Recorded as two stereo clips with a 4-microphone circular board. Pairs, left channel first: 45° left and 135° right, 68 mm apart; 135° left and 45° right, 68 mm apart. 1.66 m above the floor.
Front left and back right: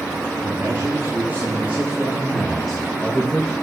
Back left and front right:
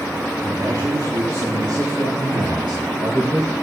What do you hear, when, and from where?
0.4 s a man speaking: 80° right, 4 m; by 3.5 s 25° right, 2 m